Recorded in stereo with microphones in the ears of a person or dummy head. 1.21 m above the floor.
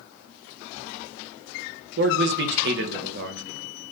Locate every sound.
2.0 s a man speaking: 60° right (ahead or behind), 0.8 m